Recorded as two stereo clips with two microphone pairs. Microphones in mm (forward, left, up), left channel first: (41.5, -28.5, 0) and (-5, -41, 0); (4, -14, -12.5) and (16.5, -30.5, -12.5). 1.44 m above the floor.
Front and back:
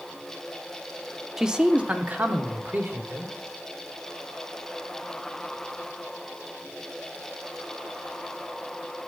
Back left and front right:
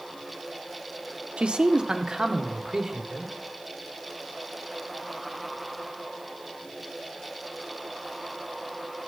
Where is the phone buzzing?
No phone buzzing in this recording.